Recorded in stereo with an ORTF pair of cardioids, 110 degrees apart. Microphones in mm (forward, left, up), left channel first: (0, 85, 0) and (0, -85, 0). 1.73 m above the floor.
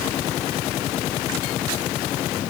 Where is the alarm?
I don't hear an alarm.